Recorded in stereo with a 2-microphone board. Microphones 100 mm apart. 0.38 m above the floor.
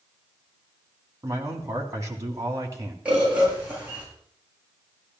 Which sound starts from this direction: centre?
A bird, at 3.0 s.